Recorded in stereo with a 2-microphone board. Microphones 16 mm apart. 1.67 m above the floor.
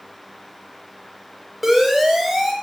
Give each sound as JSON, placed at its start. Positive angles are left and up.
{"t": 1.6, "sound": "a siren", "side_deg": -10, "distance_m": 8.0}